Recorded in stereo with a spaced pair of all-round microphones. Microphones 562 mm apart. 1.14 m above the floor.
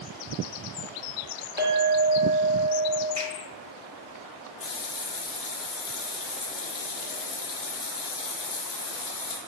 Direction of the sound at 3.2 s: 45° right (ahead or behind).